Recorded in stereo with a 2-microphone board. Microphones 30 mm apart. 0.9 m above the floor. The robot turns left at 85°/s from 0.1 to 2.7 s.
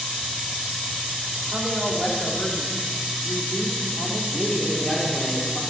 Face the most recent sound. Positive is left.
turn(degrees=30)  # may be behind; listen again after turning